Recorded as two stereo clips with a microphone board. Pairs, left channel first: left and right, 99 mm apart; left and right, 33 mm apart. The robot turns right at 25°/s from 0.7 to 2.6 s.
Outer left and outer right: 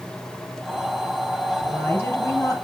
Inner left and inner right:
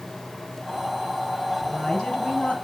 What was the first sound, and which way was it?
A woman speaking, 10° left (ahead or behind).